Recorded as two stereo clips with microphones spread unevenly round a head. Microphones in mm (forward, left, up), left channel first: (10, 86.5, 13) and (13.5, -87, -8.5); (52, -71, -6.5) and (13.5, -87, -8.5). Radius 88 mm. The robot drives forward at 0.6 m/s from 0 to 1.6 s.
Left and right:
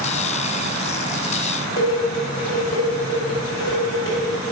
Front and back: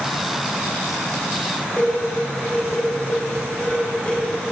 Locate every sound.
1.8 s dishes clattering: 100° left, 5 m